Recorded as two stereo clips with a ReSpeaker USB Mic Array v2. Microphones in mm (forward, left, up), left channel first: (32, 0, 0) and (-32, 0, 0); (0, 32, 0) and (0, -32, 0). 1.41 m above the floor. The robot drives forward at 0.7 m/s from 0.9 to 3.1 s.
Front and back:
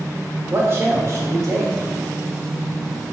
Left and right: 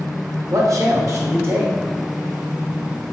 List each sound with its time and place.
0.5 s a man speaking: 125° right, 1.0 m; by 1.7 s 145° right, 1.4 m